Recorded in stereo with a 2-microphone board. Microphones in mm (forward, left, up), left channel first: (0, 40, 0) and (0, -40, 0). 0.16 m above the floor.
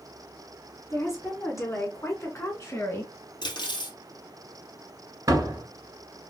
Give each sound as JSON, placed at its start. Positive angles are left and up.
{"t": 0.9, "sound": "a woman speaking", "side_deg": 40, "distance_m": 1.8}
{"t": 3.4, "sound": "cutlery clinking", "side_deg": 65, "distance_m": 2.0}
{"t": 5.3, "sound": "a door slam", "side_deg": -45, "distance_m": 1.4}